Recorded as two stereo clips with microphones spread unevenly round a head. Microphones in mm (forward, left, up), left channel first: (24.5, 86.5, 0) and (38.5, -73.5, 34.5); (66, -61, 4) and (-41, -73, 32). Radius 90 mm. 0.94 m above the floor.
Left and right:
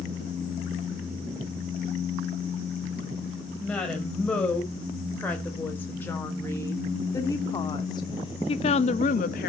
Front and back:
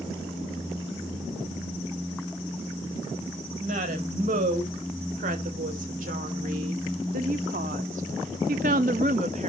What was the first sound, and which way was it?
A woman speaking, straight behind.